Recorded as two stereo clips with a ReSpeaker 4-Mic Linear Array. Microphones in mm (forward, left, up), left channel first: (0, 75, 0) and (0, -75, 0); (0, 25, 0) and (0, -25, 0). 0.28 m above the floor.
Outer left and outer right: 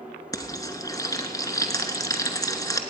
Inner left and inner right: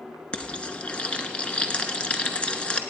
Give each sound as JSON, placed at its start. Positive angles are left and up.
{"t": 0.3, "sound": "frying", "side_deg": 25, "distance_m": 0.8}